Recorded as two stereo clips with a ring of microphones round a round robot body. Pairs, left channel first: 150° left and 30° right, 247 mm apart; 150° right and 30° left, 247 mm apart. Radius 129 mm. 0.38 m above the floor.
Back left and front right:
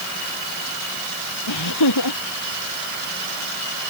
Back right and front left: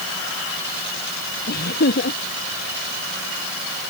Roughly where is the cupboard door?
I don't hear a cupboard door.